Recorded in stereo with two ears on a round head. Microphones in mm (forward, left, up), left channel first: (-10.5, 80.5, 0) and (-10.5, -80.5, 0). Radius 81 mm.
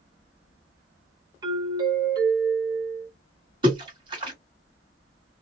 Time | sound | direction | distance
1.4 | a doorbell | 25° right (ahead or behind) | 1.1 m
3.6 | a splash | 30° right (ahead or behind) | 1.6 m